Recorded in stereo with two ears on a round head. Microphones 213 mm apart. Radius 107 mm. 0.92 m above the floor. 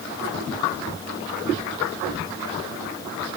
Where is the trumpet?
No trumpet in this recording.